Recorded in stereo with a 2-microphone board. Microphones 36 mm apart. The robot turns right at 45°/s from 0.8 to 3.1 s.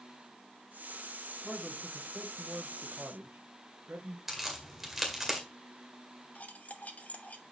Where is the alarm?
I don't hear an alarm.